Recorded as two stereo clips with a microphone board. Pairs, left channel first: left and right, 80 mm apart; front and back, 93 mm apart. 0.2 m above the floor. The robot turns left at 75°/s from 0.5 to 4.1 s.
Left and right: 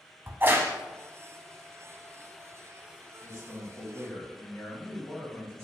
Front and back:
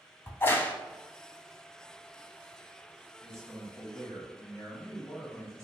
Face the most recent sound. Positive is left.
turn(degrees=30)